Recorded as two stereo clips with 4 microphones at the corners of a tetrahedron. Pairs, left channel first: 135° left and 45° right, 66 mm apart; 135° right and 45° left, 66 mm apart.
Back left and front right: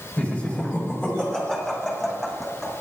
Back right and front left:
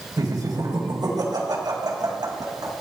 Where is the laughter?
65° left, 3 m; by 2.7 s 50° left, 6 m.